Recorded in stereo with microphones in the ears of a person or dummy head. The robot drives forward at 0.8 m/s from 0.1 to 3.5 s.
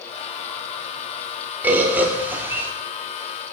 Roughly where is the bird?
Centre.